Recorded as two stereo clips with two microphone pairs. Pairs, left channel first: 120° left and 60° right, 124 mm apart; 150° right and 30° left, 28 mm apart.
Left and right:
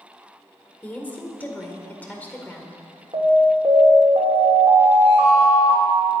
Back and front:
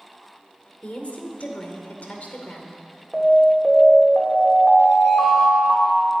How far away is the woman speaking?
About 2 m.